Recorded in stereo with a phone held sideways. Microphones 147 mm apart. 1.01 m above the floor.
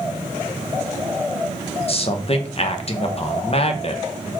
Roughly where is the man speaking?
Left.